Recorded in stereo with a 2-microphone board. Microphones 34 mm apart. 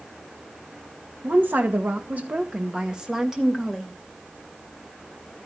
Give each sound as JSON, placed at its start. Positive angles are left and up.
{"t": 1.2, "sound": "a woman speaking", "side_deg": -75, "distance_m": 2.0}